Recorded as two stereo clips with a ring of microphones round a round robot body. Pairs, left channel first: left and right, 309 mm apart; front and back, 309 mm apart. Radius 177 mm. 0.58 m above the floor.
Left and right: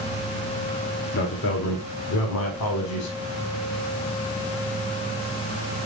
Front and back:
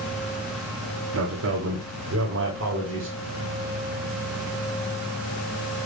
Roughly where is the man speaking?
Behind left.